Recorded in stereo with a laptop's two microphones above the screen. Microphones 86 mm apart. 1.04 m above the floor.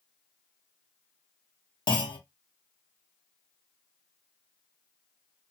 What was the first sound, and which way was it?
A clunk, 55° left (ahead or behind).